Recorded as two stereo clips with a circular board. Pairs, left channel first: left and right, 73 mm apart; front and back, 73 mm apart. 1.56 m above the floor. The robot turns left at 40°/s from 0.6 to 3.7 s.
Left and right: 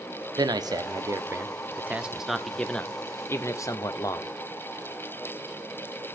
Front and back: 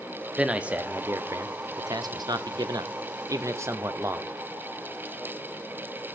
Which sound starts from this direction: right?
A man speaking, at 0.4 s.